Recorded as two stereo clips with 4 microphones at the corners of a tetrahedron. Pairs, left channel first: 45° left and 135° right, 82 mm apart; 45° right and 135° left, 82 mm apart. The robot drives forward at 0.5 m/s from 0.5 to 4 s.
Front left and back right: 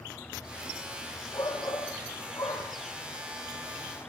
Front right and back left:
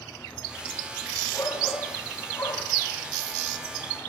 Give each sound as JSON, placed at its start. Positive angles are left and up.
{"t": 1.3, "sound": "a shout", "azimuth_deg": 5, "distance_m": 6.0}